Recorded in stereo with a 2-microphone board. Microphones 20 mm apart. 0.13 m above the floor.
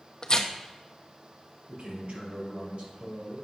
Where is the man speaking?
60° right (ahead or behind), 2.5 m.